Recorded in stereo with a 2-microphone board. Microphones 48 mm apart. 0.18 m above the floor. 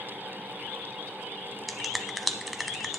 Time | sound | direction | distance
1.7 | a finger snap | centre (ahead or behind) | 0.9 m